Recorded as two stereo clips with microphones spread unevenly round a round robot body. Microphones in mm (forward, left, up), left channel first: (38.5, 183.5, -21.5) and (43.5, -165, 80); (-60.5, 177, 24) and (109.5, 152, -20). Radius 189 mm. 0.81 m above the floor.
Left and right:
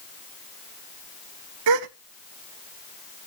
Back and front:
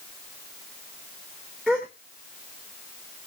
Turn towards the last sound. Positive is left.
turn(degrees=-105)